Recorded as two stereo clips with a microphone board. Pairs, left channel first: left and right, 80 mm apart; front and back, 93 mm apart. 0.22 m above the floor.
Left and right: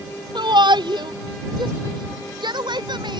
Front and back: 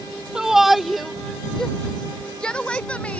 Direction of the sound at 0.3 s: 100° right.